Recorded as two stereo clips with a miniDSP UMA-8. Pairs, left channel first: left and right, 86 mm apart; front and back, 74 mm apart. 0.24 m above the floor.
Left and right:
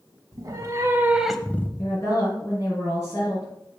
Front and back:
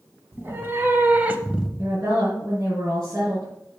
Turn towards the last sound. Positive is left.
turn(degrees=135)